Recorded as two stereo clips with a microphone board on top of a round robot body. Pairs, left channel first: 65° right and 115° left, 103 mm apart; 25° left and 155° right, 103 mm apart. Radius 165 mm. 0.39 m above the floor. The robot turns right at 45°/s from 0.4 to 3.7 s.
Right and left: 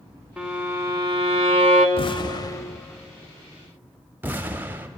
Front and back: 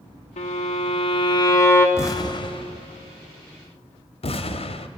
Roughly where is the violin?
Ahead left.